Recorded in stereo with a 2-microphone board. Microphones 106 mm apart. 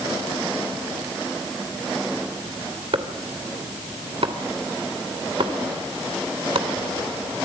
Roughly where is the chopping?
Right.